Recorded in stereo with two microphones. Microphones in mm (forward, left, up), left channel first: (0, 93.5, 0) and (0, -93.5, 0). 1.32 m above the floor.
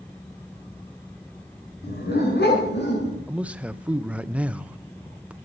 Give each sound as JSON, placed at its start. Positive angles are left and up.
{"t": 1.8, "sound": "a dog barking", "side_deg": 55, "distance_m": 5.0}
{"t": 3.3, "sound": "a man speaking", "side_deg": -5, "distance_m": 0.7}